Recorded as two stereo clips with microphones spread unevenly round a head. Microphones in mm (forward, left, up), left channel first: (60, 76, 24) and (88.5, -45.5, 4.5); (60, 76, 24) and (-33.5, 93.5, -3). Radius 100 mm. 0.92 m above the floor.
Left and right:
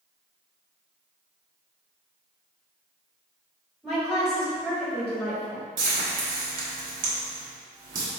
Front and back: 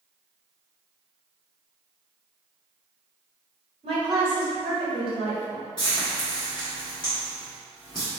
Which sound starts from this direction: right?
Frying, at 5.8 s.